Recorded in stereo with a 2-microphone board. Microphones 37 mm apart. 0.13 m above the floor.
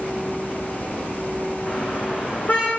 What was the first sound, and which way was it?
A car horn, 50° left (ahead or behind).